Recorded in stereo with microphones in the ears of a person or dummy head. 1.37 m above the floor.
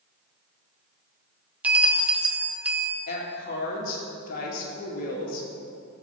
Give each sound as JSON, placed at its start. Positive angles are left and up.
{"t": 1.6, "sound": "a bell", "side_deg": -5, "distance_m": 0.8}
{"t": 3.1, "sound": "a woman speaking", "side_deg": 55, "distance_m": 2.0}